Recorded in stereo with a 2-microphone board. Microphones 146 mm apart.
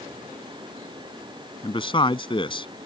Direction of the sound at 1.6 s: 35° left (ahead or behind).